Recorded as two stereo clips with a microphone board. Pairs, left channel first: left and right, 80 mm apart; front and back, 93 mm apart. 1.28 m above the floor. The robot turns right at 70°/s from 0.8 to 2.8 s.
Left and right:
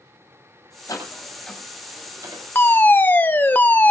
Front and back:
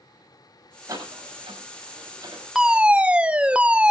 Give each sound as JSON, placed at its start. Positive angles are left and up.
{"t": 0.9, "sound": "a door slam", "azimuth_deg": 130, "distance_m": 6.5}
{"t": 2.5, "sound": "a fire alarm", "azimuth_deg": 100, "distance_m": 0.9}